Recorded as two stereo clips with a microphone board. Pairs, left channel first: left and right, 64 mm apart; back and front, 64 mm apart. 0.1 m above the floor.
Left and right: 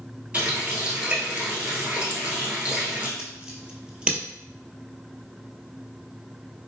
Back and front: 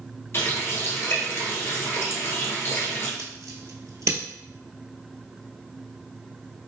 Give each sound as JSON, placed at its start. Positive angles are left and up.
{"t": 0.3, "sound": "a running tap", "azimuth_deg": -155, "distance_m": 1.3}
{"t": 3.2, "sound": "scissors", "azimuth_deg": -20, "distance_m": 1.0}